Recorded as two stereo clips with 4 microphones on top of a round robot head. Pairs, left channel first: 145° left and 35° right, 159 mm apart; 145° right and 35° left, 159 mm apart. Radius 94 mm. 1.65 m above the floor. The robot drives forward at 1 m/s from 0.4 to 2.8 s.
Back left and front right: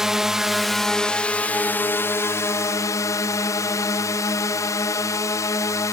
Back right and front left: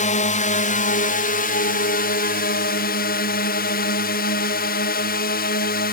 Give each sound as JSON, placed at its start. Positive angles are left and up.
{"t": 0.0, "sound": "a drone", "azimuth_deg": -125}